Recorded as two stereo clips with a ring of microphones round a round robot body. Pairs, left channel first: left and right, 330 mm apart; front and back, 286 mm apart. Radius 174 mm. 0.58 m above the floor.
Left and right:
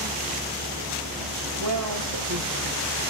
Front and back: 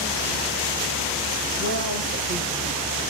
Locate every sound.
1.6 s a woman speaking: 125° right, 3.5 m